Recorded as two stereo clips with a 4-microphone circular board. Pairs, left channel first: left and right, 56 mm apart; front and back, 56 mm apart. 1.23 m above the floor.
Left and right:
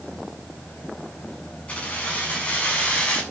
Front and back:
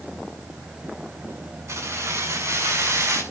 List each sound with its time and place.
1.7 s keys jangling: 160° left, 7.5 m